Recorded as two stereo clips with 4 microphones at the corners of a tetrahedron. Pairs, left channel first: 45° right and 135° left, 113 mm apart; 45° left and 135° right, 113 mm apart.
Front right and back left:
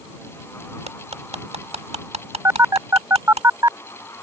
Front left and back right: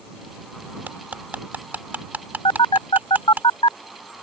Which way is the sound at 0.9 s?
150° left.